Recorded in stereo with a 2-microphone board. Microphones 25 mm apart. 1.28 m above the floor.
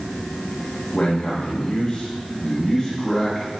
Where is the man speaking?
65° left (ahead or behind), 1.2 m; by 3.6 s 15° left (ahead or behind), 2 m.